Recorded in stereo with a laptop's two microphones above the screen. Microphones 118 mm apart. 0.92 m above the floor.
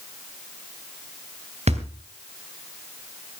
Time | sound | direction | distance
1.7 | a thud | 65° right (ahead or behind) | 3 m